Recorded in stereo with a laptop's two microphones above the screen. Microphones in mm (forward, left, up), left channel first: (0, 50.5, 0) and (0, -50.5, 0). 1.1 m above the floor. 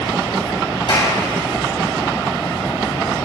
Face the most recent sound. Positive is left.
turn(degrees=55)  # may be behind; listen again after turning